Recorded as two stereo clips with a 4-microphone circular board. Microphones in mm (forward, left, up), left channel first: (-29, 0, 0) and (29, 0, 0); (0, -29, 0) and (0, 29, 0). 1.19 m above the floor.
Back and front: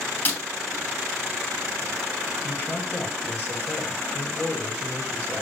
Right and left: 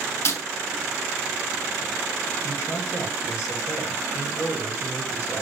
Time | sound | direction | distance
0.2 | breaking glass | 120° right | 4 m
2.4 | a man speaking | 115° right | 7.5 m